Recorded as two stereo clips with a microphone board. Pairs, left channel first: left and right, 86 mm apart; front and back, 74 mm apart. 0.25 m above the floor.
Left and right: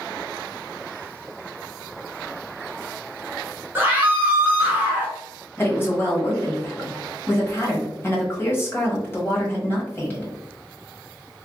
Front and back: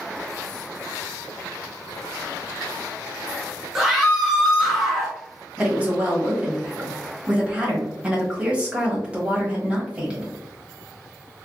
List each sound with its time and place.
3.8 s a scream: 95° right, 1.2 m
5.6 s a woman speaking: 120° left, 1.1 m